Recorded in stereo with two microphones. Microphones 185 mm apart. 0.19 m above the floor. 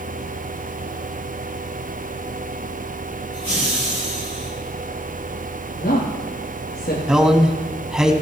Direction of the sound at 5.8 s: 60° left (ahead or behind).